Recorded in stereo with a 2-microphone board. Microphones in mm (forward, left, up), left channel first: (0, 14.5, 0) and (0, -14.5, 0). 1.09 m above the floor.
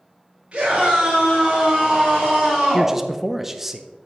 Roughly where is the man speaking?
Centre.